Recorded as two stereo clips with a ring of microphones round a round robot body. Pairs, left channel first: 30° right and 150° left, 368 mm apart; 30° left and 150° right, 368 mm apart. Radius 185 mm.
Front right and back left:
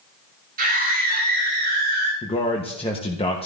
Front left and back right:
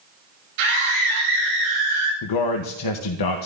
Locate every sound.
0.6 s a scream: 140° right, 4.5 m; by 2.1 s 145° right, 5 m
2.2 s a man speaking: 45° left, 0.9 m